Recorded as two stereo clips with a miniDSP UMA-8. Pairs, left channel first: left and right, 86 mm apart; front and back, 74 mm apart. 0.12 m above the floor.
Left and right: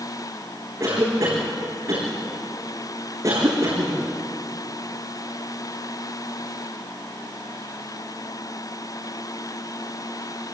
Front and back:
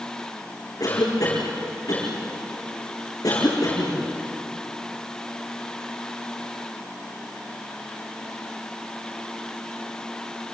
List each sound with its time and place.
0.8 s a cough: 35° right, 7.5 m